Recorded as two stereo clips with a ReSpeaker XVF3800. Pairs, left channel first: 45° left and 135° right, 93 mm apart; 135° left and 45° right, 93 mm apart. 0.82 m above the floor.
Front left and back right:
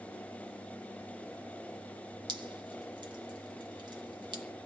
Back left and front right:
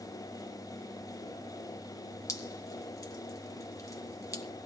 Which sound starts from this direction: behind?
Dripping, at 2.3 s.